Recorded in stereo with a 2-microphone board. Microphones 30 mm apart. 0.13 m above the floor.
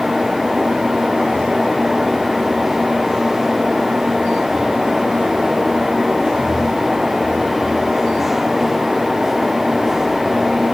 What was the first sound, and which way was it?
Only background noise.